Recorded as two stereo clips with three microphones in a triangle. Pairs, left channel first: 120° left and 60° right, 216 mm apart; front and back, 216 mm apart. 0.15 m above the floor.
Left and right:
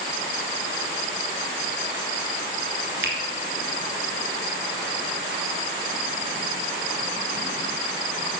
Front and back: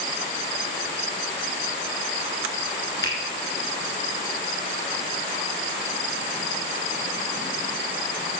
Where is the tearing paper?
No tearing paper in this recording.